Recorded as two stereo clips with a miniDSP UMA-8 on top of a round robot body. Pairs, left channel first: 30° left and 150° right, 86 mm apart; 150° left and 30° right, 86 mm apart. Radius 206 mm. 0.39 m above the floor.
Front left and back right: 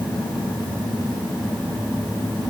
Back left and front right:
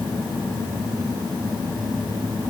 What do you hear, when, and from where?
Only background noise.